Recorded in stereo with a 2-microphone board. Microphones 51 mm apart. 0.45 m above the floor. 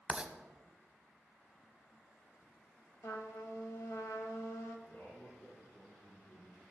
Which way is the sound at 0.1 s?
20° right (ahead or behind).